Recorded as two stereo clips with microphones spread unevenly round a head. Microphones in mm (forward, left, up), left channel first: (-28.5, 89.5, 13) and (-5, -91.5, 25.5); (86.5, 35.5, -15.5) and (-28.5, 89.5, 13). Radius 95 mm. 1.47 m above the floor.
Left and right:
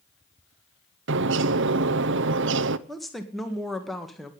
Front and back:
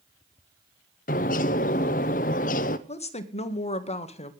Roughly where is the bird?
Ahead right.